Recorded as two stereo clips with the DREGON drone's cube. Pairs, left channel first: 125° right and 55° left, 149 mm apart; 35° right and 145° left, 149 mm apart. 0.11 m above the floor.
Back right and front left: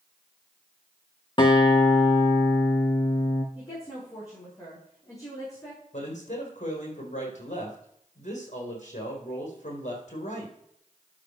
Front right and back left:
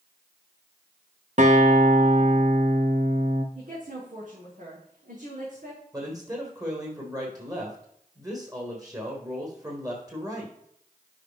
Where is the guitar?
Straight behind, 1.3 m.